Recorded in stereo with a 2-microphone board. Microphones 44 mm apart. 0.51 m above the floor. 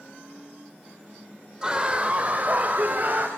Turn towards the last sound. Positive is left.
turn(degrees=-40)  # may be behind; listen again after turning